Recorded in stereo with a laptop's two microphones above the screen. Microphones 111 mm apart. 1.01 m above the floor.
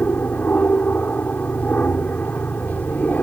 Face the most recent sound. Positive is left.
turn(degrees=15)  # may be behind; listen again after turning